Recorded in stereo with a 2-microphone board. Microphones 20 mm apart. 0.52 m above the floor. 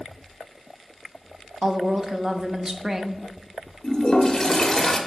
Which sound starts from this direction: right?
A woman speaking, at 1.6 s.